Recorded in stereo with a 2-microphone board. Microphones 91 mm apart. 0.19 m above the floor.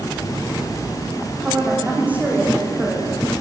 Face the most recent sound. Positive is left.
turn(degrees=-20)  # may be behind; listen again after turning